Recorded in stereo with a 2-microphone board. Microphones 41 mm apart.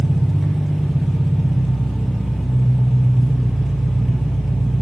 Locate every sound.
0.0 s an engine running: centre (ahead or behind), 1.3 m